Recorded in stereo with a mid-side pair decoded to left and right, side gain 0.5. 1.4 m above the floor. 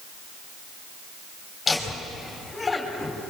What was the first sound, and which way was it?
Laughter, 30° left.